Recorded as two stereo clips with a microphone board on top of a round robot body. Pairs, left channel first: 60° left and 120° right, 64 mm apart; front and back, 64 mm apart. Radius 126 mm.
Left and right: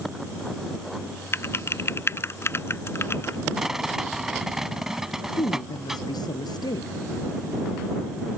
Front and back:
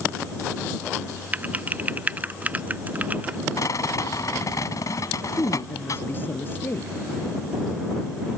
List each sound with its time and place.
1.3 s typing on a keyboard: 110° left
3.6 s a rattle: 35° right
5.3 s a woman speaking: 60° left